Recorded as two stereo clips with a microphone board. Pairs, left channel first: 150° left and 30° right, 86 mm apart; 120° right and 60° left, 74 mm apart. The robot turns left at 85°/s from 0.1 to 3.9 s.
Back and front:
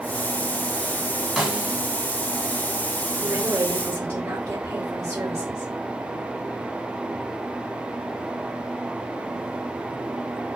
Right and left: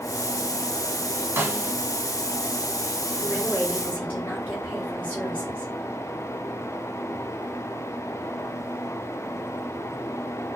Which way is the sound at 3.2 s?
15° right.